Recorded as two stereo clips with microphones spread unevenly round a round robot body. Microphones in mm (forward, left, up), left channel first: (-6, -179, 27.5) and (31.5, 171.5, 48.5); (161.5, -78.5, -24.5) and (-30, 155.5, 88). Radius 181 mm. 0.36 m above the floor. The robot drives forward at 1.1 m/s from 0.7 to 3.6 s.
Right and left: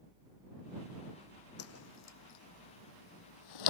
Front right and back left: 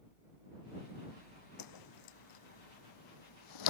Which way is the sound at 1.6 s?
45° right.